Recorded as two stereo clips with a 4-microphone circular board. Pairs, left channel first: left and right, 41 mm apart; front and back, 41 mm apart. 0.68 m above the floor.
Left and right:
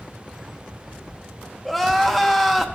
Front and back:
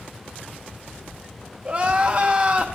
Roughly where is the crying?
Behind.